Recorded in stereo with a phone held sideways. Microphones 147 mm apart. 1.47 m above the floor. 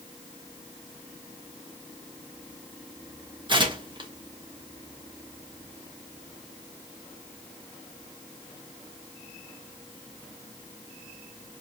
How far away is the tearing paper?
About 0.8 m.